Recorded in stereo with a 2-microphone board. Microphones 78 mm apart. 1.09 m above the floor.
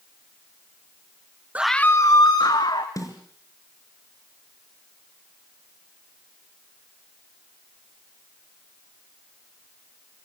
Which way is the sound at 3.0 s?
45° left (ahead or behind).